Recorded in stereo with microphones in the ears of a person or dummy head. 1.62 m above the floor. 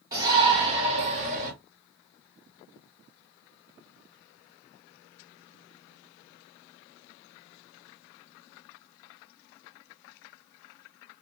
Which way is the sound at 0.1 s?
15° right (ahead or behind).